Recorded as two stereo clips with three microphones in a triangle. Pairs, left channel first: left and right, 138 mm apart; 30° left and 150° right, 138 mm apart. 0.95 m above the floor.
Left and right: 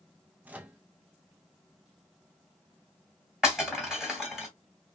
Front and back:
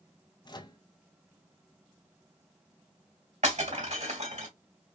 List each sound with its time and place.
0.5 s a microwave: 15° right, 0.5 m
3.4 s breaking glass: 175° right, 2.5 m